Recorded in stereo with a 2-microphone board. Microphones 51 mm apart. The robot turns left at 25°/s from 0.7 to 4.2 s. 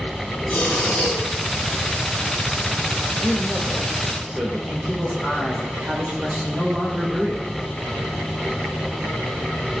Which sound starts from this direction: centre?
A man speaking, at 3.2 s.